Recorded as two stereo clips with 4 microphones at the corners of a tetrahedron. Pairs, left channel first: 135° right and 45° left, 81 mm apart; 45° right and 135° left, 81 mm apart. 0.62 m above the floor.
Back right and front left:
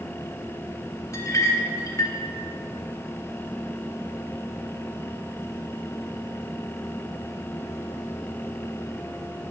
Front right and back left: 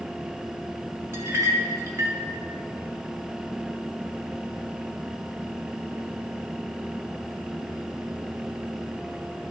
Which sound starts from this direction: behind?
A clink, at 1.1 s.